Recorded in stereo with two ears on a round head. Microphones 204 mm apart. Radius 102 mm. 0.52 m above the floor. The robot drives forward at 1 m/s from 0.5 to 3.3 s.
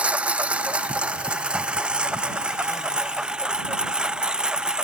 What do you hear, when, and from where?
0.0 s a lawn mower: 5° right (ahead or behind)